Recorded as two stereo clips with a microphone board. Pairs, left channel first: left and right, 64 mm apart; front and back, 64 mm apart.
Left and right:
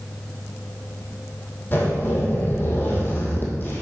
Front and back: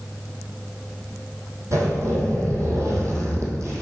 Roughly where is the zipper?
Behind left.